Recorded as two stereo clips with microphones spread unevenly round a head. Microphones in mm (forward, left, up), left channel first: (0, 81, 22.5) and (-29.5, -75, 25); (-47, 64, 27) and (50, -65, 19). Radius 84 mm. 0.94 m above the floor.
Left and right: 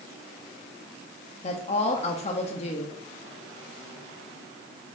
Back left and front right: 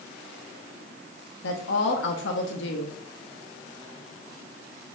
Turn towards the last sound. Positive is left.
turn(degrees=130)